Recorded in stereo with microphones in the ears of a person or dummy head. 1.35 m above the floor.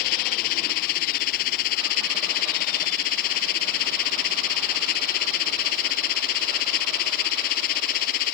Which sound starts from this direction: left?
A machine running, at 0.0 s.